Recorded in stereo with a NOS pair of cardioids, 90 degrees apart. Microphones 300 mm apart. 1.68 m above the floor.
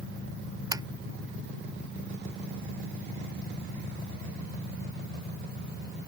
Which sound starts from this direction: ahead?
Tapping, at 0.7 s.